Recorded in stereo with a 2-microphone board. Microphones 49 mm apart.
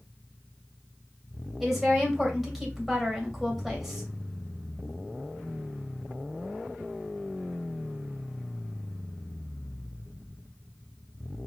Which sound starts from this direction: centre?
A woman speaking, at 1.6 s.